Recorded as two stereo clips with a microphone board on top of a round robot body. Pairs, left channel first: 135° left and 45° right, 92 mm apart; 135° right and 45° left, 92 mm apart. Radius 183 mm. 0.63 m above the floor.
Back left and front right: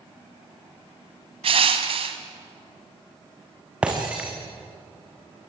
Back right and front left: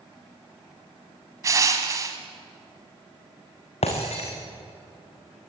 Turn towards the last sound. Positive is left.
turn(degrees=-125)